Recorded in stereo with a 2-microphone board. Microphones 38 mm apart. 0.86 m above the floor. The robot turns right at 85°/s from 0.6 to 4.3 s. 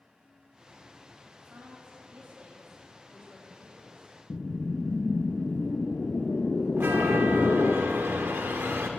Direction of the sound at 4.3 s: 45° left (ahead or behind).